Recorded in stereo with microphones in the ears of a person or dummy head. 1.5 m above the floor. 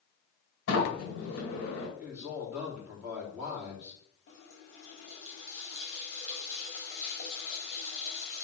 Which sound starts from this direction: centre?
A man speaking, at 2.0 s.